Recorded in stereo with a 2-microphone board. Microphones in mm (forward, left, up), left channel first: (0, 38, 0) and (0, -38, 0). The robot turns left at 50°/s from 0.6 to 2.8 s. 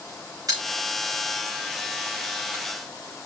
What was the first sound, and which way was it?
A pop, 50° right (ahead or behind).